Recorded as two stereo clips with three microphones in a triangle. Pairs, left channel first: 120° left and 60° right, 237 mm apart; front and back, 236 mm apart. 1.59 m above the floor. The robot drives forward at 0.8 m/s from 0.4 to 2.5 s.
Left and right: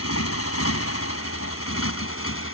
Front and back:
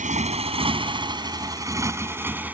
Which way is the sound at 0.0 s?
125° left.